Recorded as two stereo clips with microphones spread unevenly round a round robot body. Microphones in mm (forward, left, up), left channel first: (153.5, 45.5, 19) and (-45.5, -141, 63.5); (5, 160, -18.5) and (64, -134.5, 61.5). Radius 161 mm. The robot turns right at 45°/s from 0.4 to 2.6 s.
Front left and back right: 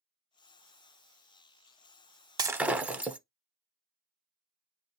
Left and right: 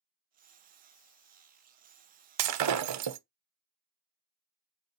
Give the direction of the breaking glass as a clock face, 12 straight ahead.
2 o'clock.